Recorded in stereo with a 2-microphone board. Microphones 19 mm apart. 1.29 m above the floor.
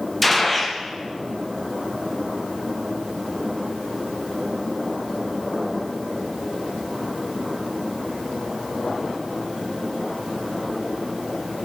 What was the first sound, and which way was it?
A gunshot, 5° left (ahead or behind).